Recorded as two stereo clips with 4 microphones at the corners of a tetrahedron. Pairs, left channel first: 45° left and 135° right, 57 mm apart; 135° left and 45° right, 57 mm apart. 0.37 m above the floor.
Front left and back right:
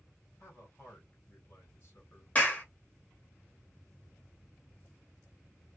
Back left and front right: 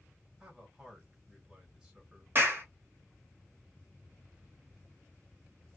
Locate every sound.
0.4 s a man speaking: 30° left, 1.8 m
2.4 s a clap: 10° right, 1.2 m